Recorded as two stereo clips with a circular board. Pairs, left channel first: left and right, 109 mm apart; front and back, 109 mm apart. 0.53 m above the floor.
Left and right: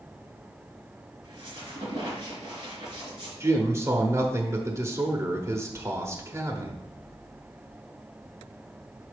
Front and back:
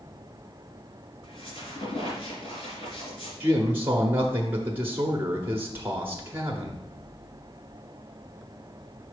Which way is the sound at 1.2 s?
40° right.